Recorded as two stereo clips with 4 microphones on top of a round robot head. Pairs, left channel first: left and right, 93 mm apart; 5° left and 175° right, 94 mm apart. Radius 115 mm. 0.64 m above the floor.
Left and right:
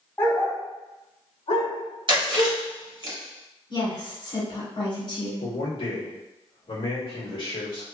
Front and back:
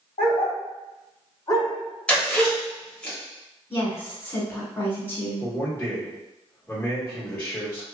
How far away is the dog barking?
About 1.1 m.